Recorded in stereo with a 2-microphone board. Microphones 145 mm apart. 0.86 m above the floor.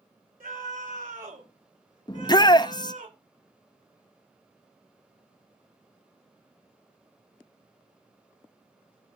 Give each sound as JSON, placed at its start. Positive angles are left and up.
{"t": 0.4, "sound": "a scream", "side_deg": -85, "distance_m": 5.0}
{"t": 2.1, "sound": "a shout", "side_deg": 30, "distance_m": 0.7}